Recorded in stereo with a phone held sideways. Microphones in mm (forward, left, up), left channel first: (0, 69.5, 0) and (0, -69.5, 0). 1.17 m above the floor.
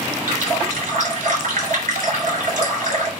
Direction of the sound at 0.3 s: 75° right (ahead or behind).